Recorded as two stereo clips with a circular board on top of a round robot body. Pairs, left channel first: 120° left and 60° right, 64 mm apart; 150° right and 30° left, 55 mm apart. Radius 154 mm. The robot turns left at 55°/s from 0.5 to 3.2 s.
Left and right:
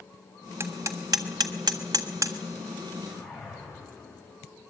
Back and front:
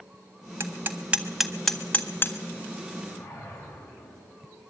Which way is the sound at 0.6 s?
10° right.